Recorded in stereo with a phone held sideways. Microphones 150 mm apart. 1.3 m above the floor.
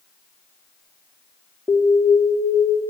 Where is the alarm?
15° right (ahead or behind), 3.5 m.